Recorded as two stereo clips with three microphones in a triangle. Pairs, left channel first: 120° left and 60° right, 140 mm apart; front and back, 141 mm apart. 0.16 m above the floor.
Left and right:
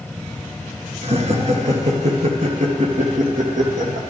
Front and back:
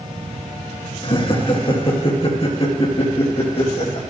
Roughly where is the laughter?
Ahead right.